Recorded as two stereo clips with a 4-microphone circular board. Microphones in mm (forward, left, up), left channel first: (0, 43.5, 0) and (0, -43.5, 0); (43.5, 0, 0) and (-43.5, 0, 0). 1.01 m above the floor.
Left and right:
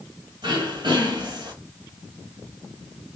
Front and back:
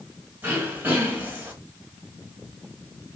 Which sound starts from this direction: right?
Throat clearing, at 0.4 s.